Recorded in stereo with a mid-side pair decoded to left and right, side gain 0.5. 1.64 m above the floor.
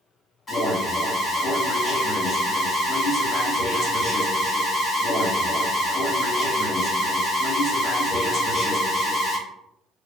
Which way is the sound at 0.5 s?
40° left.